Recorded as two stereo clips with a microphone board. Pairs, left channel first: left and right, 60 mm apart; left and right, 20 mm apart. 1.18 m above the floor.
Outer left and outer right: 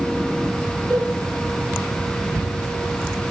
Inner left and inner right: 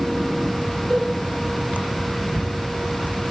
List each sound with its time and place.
0.9 s a cowbell: 25° left (ahead or behind), 3 m